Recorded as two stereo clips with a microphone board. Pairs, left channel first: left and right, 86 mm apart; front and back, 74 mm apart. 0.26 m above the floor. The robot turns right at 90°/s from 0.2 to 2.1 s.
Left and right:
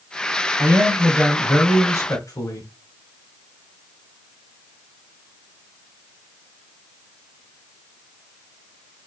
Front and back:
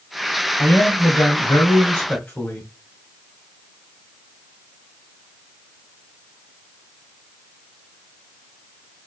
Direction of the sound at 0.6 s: 65° right.